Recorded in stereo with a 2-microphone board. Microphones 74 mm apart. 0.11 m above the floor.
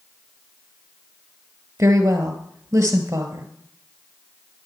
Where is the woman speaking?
35° right (ahead or behind), 1.4 m.